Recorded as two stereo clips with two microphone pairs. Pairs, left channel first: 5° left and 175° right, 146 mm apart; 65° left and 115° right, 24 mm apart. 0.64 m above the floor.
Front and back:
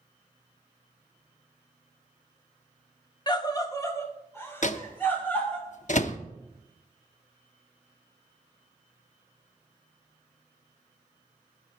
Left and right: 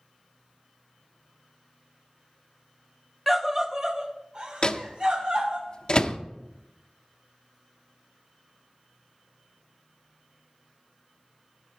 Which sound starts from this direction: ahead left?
A microwave, at 4.6 s.